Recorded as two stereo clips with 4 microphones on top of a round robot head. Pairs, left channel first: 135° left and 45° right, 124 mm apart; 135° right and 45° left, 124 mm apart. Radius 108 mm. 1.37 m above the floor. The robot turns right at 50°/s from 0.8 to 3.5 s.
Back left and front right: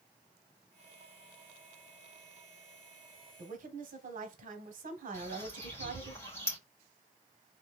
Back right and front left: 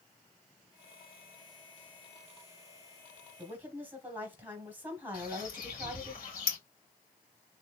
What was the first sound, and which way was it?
A woman speaking, 30° right.